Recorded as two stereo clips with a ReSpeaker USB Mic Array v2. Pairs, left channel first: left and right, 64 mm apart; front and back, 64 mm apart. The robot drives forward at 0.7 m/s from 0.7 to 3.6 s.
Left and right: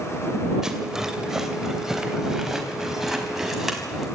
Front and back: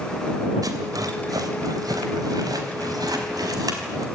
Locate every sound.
0.6 s a rattle: 170° right, 2.5 m; by 4.1 s 175° right, 4.5 m